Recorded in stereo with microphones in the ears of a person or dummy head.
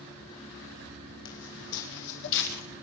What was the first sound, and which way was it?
Footsteps, 70° left (ahead or behind).